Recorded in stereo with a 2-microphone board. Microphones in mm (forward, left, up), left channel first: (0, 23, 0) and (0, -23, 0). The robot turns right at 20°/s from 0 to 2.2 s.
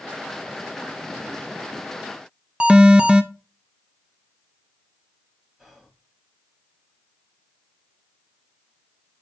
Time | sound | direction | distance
2.6 | an alarm | 20° right (ahead or behind) | 0.8 m
5.6 | whispering | 5° right (ahead or behind) | 2.5 m